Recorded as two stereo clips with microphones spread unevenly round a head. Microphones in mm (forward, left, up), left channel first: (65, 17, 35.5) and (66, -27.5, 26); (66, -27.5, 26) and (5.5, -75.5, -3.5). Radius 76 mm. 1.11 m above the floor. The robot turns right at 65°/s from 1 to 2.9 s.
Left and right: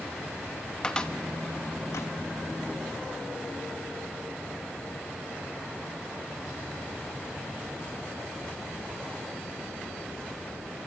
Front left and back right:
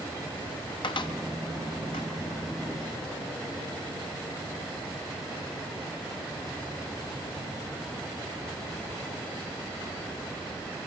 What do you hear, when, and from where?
0.8 s a cupboard door: 20° left, 1.8 m; by 2.1 s 90° left, 1.8 m